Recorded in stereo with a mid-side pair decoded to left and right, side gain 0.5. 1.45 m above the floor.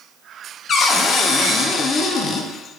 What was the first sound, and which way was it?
A cupboard door, 50° left.